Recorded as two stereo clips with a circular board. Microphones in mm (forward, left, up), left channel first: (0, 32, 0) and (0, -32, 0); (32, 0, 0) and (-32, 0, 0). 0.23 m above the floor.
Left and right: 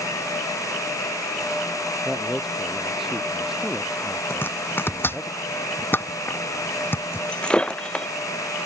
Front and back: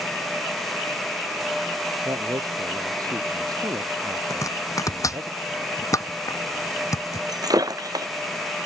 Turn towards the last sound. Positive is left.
turn(degrees=165)